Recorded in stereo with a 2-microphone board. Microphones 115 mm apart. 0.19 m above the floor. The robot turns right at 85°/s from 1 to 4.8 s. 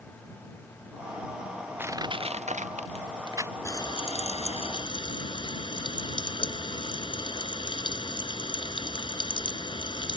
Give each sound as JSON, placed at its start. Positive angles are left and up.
{"t": 1.8, "sound": "crushing", "side_deg": -15}
{"t": 3.6, "sound": "frying", "azimuth_deg": 30}